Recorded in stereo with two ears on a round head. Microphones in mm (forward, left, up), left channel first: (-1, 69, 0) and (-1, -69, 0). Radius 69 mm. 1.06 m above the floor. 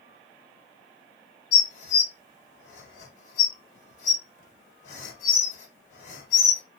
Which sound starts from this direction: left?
Dishes clattering, at 1.5 s.